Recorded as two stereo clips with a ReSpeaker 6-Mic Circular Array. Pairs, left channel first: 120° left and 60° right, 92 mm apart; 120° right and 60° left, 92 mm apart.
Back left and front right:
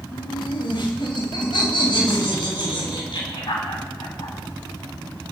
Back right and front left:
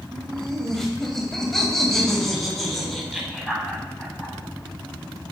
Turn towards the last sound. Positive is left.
turn(degrees=150)